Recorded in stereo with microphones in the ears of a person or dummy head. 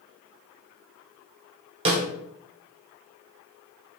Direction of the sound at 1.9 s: 25° right (ahead or behind).